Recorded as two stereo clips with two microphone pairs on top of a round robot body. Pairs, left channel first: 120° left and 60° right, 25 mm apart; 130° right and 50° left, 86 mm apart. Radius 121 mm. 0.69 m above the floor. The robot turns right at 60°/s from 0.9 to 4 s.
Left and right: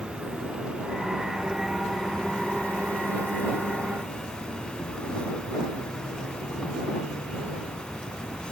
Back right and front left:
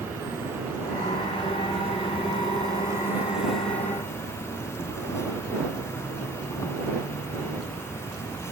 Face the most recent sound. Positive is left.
turn(degrees=170)